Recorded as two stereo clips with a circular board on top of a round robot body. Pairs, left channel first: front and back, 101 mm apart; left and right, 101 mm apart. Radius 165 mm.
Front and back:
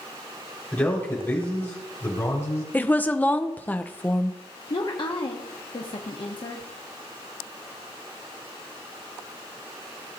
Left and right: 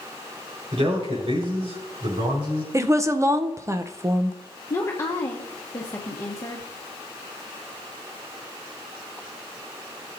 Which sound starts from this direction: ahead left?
A woman speaking, at 4.7 s.